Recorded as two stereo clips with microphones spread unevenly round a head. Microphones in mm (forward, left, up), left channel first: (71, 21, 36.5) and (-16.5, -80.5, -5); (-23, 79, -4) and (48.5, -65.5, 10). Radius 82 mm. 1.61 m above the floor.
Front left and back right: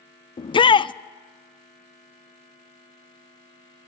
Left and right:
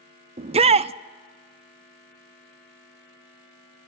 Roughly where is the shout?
Ahead.